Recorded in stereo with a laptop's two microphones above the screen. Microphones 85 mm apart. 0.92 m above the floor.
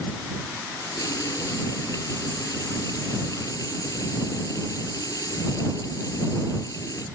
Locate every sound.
0.8 s a running tap: 50° left (ahead or behind)